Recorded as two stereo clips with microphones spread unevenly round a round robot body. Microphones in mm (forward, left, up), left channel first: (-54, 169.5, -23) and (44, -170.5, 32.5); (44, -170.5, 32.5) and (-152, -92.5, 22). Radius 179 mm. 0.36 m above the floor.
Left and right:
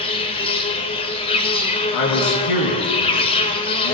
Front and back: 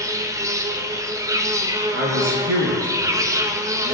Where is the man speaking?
135° left, 4 m.